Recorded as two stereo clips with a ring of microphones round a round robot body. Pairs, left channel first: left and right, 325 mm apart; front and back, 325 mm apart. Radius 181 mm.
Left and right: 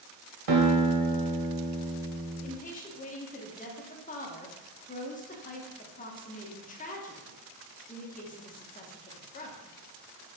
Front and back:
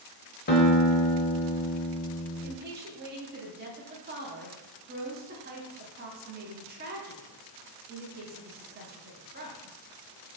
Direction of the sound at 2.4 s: 140° left.